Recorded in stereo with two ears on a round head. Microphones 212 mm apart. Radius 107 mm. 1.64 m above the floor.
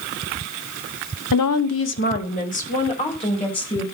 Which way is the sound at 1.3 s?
90° left.